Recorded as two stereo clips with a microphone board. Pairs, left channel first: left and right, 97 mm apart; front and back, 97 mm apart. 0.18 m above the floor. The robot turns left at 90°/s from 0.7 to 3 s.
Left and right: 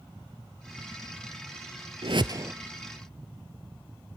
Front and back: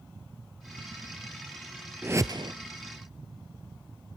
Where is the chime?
No chime in this recording.